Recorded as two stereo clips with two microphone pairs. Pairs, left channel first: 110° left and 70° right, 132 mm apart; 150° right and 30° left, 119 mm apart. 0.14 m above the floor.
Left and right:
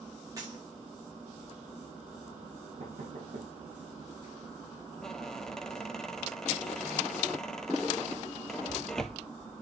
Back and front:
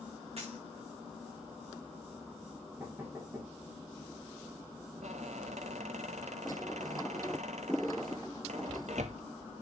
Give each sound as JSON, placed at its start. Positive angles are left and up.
{"t": 0.4, "sound": "a dropped coin", "azimuth_deg": -5, "distance_m": 4.5}
{"t": 2.8, "sound": "knocking", "azimuth_deg": -40, "distance_m": 5.0}
{"t": 5.0, "sound": "a squeak", "azimuth_deg": 25, "distance_m": 0.7}